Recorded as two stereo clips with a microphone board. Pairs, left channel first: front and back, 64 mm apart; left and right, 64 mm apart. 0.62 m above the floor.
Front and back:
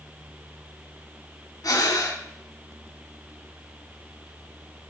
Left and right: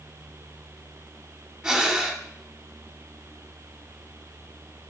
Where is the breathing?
15° right, 0.7 m.